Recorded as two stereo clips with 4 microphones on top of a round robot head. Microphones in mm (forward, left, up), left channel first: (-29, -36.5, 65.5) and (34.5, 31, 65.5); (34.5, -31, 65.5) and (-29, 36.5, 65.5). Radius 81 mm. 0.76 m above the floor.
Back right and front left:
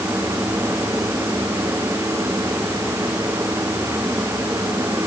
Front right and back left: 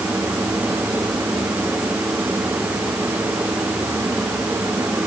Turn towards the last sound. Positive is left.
No sound to turn to.